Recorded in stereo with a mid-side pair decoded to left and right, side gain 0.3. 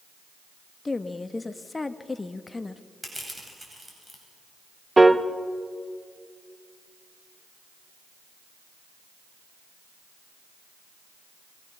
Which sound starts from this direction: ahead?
Crushing, at 3.0 s.